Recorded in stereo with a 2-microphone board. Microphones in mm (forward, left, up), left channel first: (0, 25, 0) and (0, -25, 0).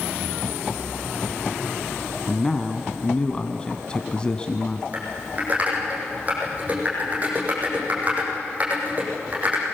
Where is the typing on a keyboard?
30° right (ahead or behind), 7 m.